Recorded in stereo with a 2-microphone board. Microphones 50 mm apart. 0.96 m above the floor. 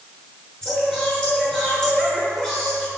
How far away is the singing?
About 6.5 m.